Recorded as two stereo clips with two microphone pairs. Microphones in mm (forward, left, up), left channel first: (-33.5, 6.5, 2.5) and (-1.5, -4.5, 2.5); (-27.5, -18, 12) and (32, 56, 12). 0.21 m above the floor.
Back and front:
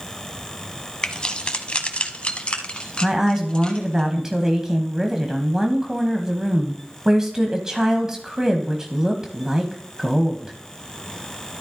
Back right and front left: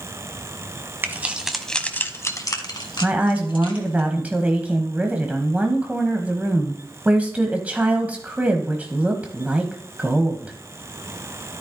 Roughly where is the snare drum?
I don't hear a snare drum.